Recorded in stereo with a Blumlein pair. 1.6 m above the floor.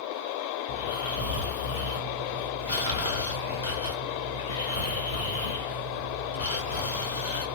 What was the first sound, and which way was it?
Snoring, 70° left.